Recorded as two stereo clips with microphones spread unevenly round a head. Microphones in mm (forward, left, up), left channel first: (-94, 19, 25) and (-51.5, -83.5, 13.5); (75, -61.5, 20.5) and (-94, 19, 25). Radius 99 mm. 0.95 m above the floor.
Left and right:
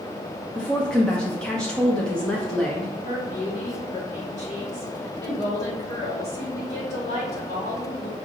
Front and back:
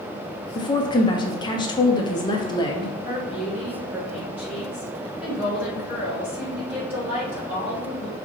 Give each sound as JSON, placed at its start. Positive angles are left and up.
{"t": 0.6, "sound": "a woman speaking", "azimuth_deg": 30, "distance_m": 0.6}
{"t": 3.0, "sound": "a woman speaking", "azimuth_deg": 70, "distance_m": 1.6}